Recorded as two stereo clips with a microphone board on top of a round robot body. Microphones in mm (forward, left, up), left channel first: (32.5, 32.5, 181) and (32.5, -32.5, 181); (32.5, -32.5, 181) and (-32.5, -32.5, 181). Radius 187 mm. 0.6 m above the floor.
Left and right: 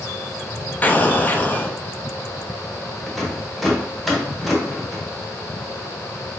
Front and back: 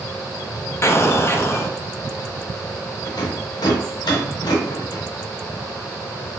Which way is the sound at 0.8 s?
35° left.